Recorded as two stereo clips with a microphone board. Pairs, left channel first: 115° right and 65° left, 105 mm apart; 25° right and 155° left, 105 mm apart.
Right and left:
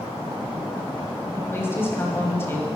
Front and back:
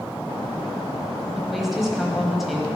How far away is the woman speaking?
About 1.2 m.